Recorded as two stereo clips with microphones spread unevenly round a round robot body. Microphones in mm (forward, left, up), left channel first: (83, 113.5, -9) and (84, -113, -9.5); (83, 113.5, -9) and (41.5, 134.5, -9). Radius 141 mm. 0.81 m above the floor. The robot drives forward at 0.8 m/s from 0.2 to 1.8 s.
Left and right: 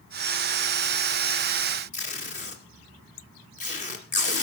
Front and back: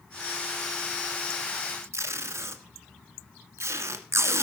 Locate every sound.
1.9 s tape being pulled: 150° left, 1.4 m